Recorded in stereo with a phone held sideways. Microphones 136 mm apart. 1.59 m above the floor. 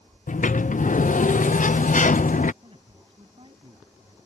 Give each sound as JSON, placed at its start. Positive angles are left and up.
{"t": 0.3, "sound": "a sliding door", "side_deg": 70}
{"t": 2.6, "sound": "a man speaking", "side_deg": -40}